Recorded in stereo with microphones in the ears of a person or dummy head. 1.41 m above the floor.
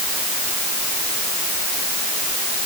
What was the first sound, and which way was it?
Only background noise.